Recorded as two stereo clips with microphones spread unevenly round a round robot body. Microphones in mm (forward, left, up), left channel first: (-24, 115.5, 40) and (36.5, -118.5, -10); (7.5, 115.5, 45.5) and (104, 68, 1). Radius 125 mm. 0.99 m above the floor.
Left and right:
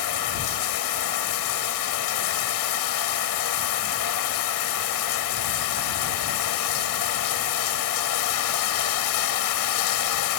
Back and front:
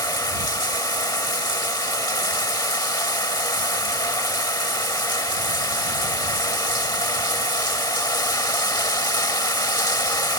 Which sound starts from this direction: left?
Running water, at 0.0 s.